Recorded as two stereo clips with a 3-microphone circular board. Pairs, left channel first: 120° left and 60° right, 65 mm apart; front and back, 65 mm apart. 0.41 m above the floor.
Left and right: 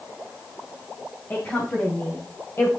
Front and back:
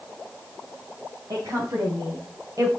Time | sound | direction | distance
1.3 | a woman speaking | 170° left | 4 m